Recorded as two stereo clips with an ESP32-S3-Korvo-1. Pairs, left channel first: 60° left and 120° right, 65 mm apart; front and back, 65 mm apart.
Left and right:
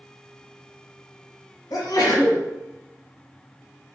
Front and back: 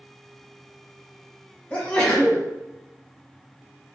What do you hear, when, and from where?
1.7 s a sneeze: 65° left, 1.1 m